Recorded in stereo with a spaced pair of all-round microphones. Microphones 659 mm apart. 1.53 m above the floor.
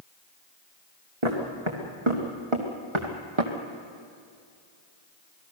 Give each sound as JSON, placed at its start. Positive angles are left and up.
{"t": 1.2, "sound": "footsteps", "side_deg": -45, "distance_m": 4.0}